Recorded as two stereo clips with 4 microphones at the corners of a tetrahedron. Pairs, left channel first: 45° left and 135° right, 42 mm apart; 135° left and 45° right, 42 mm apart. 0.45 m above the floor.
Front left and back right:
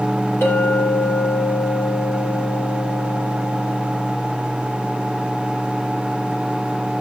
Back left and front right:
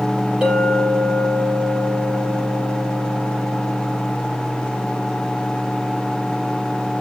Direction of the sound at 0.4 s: 25° left.